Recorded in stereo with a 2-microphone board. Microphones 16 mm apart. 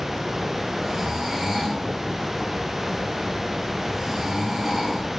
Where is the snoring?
30° right (ahead or behind), 9 m.